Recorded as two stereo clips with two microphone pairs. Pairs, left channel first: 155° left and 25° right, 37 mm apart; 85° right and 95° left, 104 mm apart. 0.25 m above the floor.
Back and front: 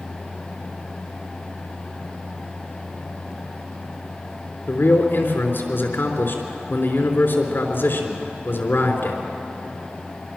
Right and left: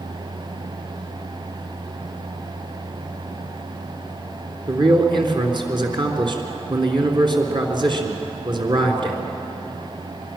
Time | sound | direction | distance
4.7 | a man speaking | 140° left | 3.5 m